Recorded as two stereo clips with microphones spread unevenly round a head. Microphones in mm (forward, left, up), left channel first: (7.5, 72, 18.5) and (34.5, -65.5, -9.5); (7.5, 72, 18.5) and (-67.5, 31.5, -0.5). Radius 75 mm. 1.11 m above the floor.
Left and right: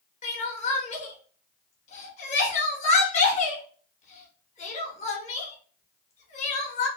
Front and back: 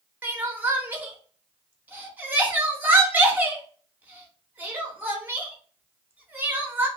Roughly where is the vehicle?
I don't hear a vehicle.